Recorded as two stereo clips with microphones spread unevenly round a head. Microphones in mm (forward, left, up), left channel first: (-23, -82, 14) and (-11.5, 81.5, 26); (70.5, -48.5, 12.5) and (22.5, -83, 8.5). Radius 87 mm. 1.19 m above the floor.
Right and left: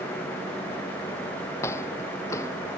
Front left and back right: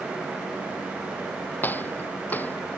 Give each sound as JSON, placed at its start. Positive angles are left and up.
{"t": 1.6, "sound": "footsteps", "azimuth_deg": -20}